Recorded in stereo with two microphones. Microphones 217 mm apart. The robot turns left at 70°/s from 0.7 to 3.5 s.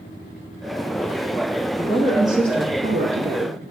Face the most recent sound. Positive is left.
turn(degrees=-105)